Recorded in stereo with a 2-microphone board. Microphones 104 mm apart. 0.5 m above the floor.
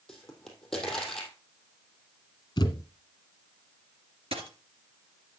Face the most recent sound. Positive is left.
turn(degrees=-65)  # may be behind; listen again after turning